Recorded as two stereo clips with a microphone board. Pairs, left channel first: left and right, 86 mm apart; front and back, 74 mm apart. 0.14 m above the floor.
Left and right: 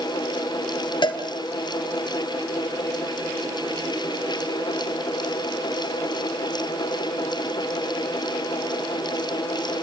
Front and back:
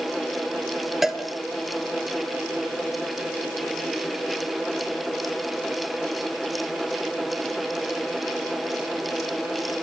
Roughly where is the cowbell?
Left.